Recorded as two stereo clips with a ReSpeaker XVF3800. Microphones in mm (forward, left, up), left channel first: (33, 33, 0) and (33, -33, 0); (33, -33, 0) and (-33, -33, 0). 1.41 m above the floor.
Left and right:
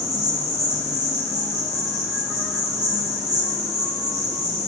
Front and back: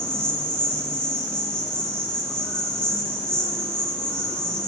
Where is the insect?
75° right, 1.6 m.